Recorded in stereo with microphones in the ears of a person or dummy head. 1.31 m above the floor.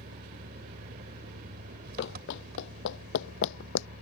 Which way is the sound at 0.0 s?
60° right (ahead or behind).